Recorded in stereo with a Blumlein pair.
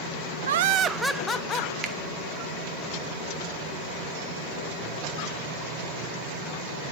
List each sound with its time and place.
0.5 s laughter: 65° right, 0.6 m; by 1.7 s 30° left, 1.0 m
1.8 s a finger snap: 25° right, 1.1 m